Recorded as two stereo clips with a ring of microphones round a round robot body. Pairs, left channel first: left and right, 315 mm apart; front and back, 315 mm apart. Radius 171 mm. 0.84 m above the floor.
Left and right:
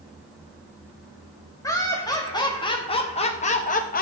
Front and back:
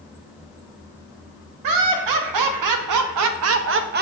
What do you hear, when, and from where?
1.6 s laughter: 170° left, 1.7 m; by 4.0 s 135° left, 0.7 m